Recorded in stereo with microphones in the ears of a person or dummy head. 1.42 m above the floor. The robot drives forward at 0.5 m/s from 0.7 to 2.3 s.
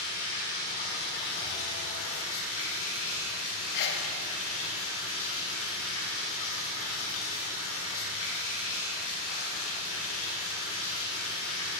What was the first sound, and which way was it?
Running water, 55° left (ahead or behind).